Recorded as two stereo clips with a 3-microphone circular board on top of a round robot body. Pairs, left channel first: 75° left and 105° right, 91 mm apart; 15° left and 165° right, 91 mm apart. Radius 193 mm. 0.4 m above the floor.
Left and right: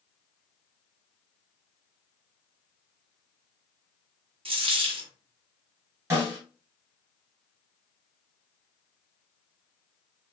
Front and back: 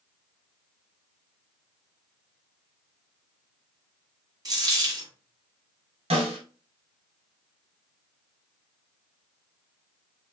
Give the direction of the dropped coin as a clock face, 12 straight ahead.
4 o'clock.